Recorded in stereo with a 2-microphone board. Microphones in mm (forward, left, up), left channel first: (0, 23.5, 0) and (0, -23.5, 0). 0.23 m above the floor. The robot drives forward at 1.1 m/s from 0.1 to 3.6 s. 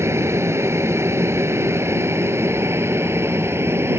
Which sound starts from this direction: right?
An aircraft, at 0.0 s.